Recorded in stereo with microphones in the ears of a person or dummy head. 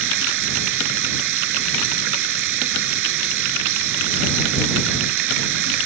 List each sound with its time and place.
0.0 s running water: 60° right (ahead or behind)